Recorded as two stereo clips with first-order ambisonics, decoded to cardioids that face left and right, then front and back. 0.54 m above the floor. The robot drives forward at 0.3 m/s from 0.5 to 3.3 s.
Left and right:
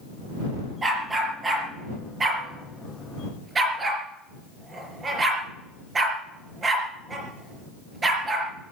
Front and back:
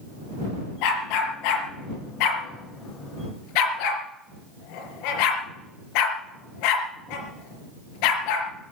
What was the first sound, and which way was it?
A dog barking, 15° right.